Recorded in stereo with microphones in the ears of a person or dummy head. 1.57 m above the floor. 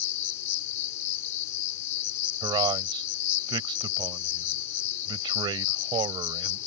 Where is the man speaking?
25° right (ahead or behind).